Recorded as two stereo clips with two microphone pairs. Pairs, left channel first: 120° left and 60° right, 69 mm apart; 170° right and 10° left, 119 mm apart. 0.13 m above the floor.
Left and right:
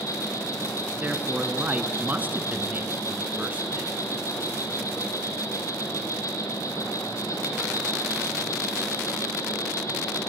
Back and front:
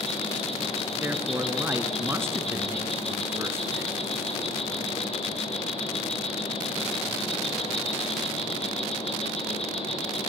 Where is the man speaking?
30° right, 1.6 m.